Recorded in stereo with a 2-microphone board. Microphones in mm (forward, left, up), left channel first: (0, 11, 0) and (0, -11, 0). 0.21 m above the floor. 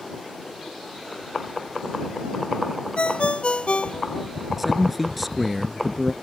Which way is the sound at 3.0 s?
60° left (ahead or behind).